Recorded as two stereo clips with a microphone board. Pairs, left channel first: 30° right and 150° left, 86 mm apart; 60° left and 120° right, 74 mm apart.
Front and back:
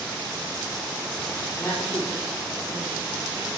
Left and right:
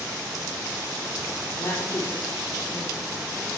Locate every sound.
1.6 s a woman speaking: 30° left, 6.5 m